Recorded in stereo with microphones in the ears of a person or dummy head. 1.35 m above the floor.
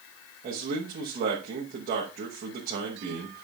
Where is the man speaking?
45° right (ahead or behind), 1.2 m.